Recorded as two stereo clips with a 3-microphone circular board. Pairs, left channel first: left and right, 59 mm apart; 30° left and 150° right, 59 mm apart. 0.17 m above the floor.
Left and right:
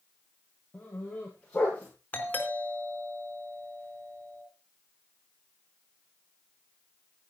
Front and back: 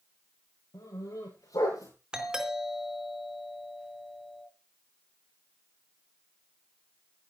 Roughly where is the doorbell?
Behind left.